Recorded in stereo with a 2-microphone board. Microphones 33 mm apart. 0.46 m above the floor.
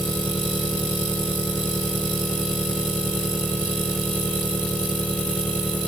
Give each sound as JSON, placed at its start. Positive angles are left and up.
{"t": 0.0, "sound": "an engine running", "side_deg": 75}